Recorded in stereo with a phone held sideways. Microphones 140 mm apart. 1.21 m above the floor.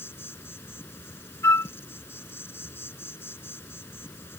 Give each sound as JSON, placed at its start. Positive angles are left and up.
{"t": 0.0, "sound": "an insect", "side_deg": 15}
{"t": 1.4, "sound": "a flute", "side_deg": 20}